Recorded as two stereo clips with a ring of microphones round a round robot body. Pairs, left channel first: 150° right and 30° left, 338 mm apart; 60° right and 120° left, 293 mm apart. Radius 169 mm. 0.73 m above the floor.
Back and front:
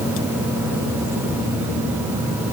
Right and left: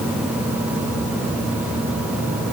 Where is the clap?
No clap in this recording.